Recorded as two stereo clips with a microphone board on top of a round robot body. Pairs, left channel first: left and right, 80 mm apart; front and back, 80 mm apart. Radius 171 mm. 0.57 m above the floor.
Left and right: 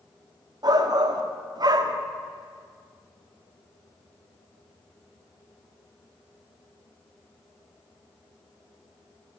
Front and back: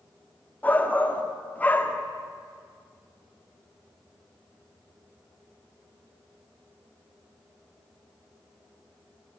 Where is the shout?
70° right, 1.5 m.